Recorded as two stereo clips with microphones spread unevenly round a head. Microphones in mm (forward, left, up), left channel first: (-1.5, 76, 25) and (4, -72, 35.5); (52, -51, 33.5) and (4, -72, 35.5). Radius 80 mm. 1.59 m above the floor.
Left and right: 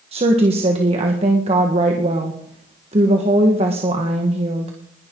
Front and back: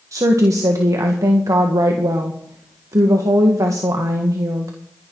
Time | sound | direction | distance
0.1 | a woman speaking | 140° right | 1.6 m